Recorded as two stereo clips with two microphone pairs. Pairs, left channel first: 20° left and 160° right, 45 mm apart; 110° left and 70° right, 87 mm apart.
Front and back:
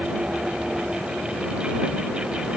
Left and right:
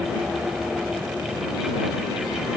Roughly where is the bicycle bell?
No bicycle bell in this recording.